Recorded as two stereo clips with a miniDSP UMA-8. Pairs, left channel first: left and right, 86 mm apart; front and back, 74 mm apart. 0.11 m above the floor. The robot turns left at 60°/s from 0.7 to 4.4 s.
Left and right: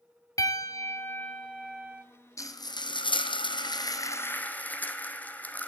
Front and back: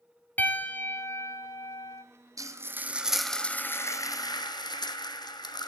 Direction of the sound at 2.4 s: 140° left.